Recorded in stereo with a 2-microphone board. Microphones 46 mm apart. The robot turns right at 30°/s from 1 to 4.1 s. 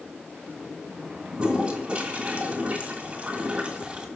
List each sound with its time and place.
1.3 s a toilet flushing: 20° right (ahead or behind), 1.8 m; by 4.1 s 25° right (ahead or behind), 1.8 m